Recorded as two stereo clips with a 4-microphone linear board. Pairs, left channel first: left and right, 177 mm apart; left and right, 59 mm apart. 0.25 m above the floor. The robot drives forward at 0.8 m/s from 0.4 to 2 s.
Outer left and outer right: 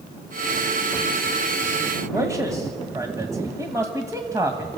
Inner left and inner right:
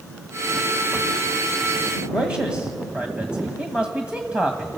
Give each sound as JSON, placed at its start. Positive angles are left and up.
{"t": 2.1, "sound": "a man speaking", "side_deg": -20, "distance_m": 1.3}